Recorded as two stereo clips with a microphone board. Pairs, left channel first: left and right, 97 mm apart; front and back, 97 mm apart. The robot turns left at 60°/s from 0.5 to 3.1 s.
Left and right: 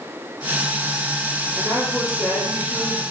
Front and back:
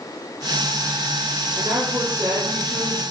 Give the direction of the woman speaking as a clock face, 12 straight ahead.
5 o'clock.